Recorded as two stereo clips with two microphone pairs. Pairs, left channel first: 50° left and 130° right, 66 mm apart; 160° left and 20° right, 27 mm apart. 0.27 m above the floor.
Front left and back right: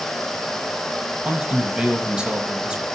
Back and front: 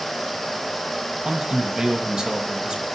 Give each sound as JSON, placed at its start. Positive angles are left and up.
{"t": 1.2, "sound": "a man speaking", "azimuth_deg": -65, "distance_m": 1.1}